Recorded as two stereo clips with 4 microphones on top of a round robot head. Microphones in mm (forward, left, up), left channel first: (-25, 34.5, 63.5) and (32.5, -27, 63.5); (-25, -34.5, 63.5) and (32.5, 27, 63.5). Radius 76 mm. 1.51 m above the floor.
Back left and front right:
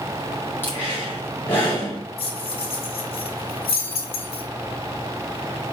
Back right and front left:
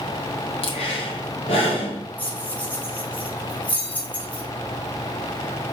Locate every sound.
0.6 s breathing: 155° right, 3 m
2.2 s keys jangling: 150° left, 2.5 m